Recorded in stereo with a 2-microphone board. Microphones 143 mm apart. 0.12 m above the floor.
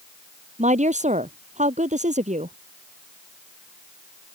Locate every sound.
0.6 s a woman speaking: 55° right (ahead or behind)